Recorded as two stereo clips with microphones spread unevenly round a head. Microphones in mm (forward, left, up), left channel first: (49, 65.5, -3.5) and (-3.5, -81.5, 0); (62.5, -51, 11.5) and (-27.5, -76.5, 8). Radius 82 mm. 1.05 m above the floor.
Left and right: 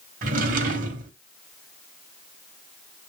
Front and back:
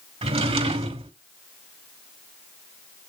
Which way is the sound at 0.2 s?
150° right.